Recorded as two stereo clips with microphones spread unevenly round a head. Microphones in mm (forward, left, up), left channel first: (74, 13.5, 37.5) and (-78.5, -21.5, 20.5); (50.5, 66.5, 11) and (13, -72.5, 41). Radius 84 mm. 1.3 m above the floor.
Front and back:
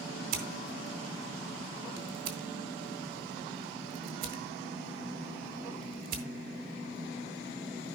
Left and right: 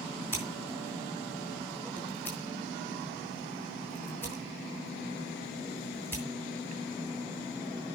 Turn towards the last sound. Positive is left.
turn(degrees=160)